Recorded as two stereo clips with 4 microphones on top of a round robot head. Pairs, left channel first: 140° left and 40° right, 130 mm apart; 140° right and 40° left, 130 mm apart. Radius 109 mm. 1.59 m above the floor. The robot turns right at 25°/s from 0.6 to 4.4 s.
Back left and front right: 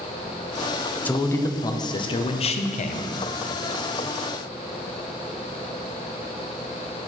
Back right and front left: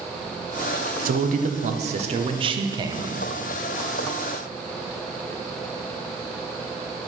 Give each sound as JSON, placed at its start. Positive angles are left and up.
{"t": 1.1, "sound": "a man speaking", "azimuth_deg": 60, "distance_m": 0.8}